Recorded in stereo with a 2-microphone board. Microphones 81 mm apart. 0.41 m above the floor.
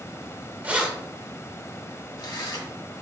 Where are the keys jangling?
20° right (ahead or behind), 0.7 m; by 2.7 s 65° left (ahead or behind), 1.2 m.